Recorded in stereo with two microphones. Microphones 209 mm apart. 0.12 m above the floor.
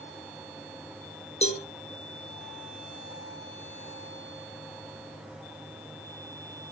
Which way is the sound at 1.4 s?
30° left (ahead or behind).